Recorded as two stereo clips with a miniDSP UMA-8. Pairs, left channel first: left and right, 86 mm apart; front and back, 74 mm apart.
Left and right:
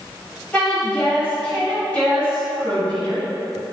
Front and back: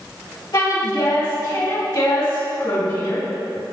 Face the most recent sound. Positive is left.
turn(degrees=15)